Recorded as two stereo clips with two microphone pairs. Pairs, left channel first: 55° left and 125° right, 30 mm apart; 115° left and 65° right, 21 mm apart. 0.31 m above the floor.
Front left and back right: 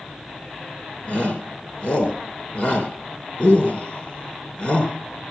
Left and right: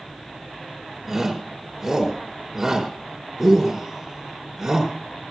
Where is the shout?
15° left, 4.5 m.